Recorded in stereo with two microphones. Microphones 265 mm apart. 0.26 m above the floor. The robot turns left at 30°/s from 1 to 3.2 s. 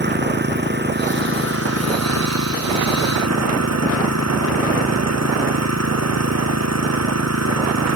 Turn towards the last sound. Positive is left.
turn(degrees=-105)